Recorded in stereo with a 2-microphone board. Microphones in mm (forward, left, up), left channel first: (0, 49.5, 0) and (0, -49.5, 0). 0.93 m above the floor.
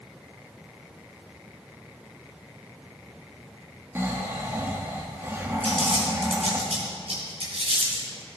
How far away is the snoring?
About 1.5 m.